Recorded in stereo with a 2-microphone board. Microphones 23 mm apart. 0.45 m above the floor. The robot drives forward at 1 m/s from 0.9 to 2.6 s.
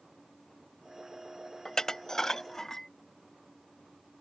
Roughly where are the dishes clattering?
Left.